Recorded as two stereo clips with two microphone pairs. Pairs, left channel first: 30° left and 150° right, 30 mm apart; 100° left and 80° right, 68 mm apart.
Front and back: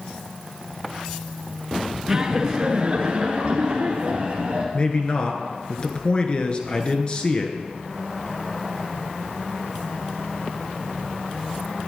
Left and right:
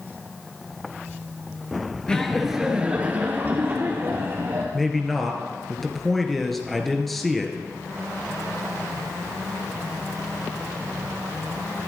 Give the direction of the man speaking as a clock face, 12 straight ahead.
12 o'clock.